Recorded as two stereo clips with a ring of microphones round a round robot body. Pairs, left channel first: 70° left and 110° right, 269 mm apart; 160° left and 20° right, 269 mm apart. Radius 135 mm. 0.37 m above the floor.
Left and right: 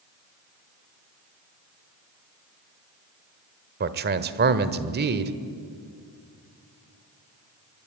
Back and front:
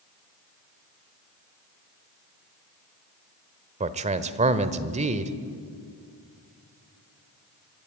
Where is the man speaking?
75° right, 1.3 m.